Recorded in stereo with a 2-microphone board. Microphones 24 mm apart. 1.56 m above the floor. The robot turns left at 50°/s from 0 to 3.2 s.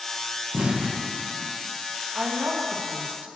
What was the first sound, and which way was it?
An explosion, 65° right (ahead or behind).